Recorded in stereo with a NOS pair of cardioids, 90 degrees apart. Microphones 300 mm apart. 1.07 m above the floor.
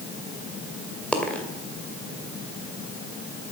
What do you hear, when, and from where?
1.1 s a dropped coin: 5° left, 2 m